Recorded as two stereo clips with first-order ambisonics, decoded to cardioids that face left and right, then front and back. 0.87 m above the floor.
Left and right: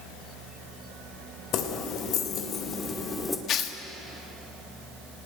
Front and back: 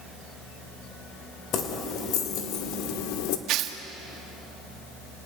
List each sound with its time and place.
1.5 s keys jangling: 50° left, 2.5 m; by 3.4 s 10° left, 1.8 m
3.5 s tearing paper: 140° left, 1.4 m